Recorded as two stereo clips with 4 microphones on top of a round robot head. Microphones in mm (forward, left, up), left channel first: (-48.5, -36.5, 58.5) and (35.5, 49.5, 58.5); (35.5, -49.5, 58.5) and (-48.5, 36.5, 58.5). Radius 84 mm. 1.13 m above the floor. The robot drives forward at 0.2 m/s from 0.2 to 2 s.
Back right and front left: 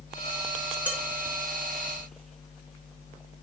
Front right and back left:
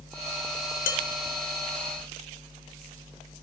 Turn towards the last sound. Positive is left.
turn(degrees=-55)